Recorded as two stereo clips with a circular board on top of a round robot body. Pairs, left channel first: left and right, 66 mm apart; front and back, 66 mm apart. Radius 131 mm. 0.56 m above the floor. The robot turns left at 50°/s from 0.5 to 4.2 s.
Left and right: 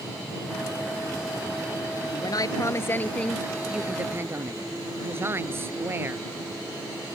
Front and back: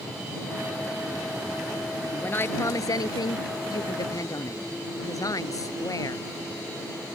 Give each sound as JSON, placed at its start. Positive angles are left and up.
{"t": 2.1, "sound": "a woman speaking", "azimuth_deg": 70}